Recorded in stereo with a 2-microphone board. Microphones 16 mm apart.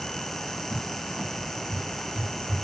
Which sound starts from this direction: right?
A cupboard door, at 0.7 s.